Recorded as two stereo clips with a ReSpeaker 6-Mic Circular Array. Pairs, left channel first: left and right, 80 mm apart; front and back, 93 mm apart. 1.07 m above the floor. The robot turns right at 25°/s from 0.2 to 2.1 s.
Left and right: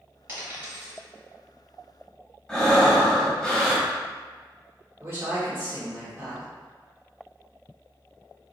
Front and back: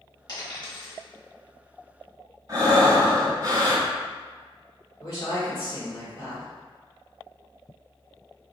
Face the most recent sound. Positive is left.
turn(degrees=-35)